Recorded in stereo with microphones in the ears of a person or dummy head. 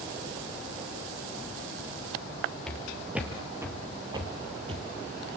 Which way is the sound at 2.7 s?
Centre (ahead or behind).